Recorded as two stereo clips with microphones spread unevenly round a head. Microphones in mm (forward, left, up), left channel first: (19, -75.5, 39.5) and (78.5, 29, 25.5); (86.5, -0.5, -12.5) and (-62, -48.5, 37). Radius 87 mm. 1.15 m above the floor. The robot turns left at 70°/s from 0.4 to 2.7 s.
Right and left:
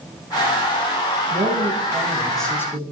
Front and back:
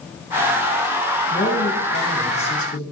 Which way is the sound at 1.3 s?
45° left.